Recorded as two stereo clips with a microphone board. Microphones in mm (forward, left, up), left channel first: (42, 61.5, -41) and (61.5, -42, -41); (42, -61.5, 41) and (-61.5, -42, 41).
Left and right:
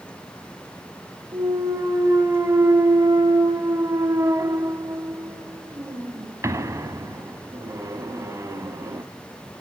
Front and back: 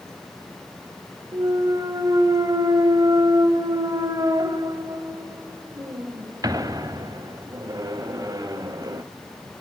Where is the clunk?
135° right, 1.0 m.